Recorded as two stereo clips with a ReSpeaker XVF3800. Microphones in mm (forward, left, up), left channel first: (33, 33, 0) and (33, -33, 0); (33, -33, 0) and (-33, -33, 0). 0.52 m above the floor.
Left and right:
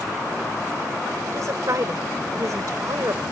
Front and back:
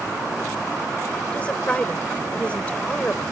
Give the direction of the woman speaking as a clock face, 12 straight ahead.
2 o'clock.